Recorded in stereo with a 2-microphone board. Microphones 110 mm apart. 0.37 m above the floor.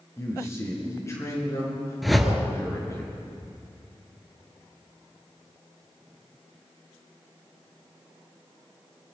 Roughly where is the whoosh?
Centre.